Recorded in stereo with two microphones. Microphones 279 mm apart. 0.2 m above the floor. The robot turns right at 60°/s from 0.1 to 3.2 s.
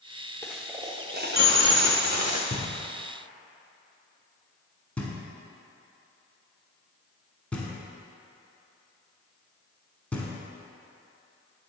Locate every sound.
0.4 s a dropped coin: 170° left, 0.9 m; by 2.4 s 70° right, 0.9 m
2.5 s knocking: 35° left (ahead or behind), 1.2 m; by 10.3 s 5° left (ahead or behind), 1.2 m